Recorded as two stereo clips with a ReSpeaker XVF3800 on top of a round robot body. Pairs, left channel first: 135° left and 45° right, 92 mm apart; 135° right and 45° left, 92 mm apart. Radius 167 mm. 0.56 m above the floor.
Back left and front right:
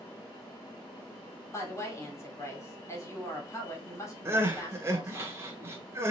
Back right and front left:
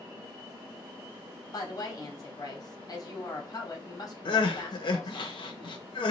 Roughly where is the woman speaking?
Behind.